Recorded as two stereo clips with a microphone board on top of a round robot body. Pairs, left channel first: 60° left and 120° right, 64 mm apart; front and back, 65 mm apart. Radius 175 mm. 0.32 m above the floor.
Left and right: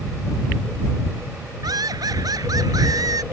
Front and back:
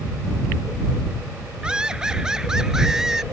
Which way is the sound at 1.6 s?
105° right.